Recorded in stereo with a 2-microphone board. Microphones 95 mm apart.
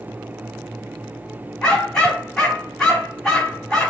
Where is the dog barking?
5° left (ahead or behind), 2 m.